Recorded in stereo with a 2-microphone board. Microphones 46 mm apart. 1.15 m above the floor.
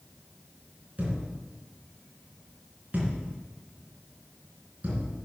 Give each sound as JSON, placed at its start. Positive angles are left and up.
{"t": 1.0, "sound": "a thud", "side_deg": -35, "distance_m": 3.5}